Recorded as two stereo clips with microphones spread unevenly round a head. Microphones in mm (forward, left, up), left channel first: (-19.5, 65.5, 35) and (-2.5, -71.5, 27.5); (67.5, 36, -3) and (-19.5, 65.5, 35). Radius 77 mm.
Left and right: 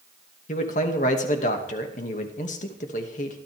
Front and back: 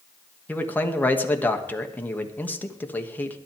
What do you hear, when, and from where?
0.5 s a man speaking: 55° left, 2.5 m